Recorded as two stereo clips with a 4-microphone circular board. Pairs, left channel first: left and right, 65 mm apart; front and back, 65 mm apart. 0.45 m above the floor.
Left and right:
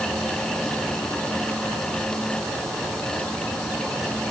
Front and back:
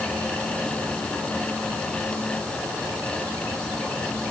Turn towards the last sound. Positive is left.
No sound to turn to.